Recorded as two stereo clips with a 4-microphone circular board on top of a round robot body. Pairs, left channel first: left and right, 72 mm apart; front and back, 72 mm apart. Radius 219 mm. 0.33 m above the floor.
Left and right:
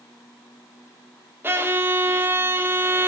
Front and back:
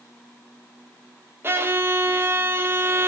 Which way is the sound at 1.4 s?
135° right.